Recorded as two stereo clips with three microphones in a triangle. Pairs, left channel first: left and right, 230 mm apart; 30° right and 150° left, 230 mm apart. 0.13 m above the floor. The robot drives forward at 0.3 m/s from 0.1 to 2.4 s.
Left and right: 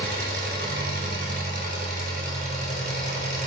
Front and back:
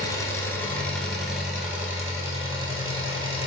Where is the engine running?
100° right, 1.0 m; by 3.5 s 135° right, 1.3 m.